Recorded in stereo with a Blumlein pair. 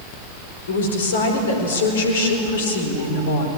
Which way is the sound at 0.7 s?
60° left.